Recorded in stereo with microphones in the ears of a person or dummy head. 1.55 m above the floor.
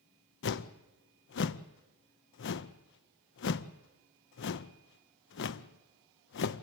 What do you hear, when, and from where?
0.4 s a whoosh: 55° left (ahead or behind), 0.6 m